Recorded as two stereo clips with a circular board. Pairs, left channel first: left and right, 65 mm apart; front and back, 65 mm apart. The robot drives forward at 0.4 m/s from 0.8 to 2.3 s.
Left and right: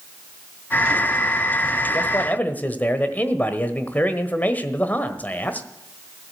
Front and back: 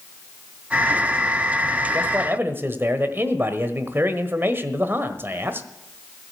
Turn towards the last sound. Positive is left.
turn(degrees=140)